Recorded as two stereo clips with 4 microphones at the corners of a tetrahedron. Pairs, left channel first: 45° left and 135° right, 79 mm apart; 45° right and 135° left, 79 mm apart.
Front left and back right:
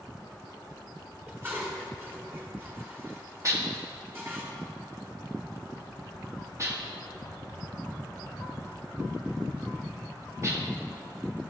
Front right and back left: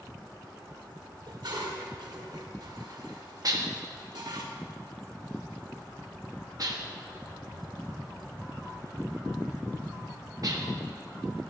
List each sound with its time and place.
1.3 s dishes clattering: 165° left, 2 m
3.4 s dishes clattering: 175° left, 1.3 m